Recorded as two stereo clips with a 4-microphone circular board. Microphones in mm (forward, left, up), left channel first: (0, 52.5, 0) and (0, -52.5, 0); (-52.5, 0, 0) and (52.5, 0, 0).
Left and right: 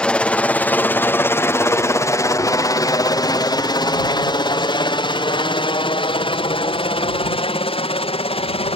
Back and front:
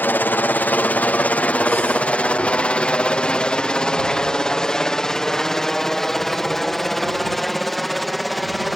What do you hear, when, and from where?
0.0 s a helicopter: 150° left; by 8.8 s 90° left